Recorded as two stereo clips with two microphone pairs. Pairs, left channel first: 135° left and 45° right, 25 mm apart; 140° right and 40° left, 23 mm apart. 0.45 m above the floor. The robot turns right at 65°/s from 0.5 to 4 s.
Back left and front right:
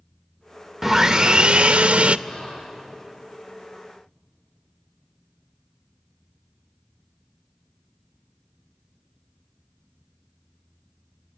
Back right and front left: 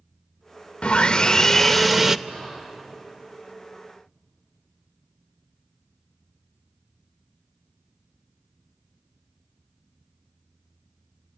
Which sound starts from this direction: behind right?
Sawing, at 0.8 s.